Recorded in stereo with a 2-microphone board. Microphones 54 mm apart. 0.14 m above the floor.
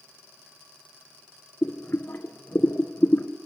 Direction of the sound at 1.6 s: 40° left (ahead or behind).